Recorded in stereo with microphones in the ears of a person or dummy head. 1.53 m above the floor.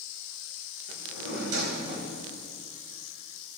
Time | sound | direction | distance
0.9 | a drawer | 60° right (ahead or behind) | 2.5 m